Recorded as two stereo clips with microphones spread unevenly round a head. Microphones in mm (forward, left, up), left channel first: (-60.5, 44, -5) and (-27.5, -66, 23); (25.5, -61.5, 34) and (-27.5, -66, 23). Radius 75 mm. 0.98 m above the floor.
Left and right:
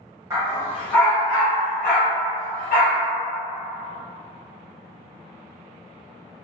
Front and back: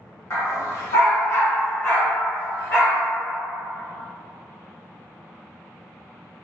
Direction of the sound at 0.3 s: 10° right.